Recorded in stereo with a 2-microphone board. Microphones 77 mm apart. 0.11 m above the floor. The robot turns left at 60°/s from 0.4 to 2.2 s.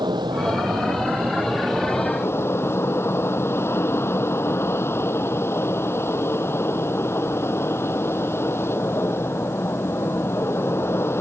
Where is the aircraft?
105° right; by 11.2 s 150° left.